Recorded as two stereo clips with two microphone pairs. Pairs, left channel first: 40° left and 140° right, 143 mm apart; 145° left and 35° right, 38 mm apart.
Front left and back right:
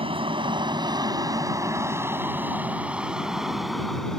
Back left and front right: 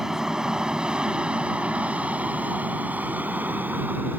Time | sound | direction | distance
0.0 | an aircraft | 105° right | ?